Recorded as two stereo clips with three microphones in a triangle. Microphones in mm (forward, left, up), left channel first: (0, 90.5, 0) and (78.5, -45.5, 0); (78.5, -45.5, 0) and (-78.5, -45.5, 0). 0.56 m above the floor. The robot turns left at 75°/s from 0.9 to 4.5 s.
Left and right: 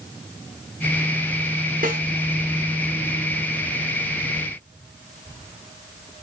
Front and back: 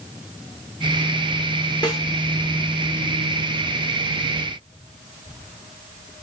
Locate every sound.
1.8 s a snare drum: 60° right, 1.1 m; by 2.0 s 75° right, 1.1 m